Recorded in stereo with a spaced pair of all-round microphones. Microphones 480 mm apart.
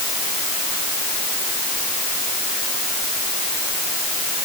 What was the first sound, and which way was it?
Only background noise.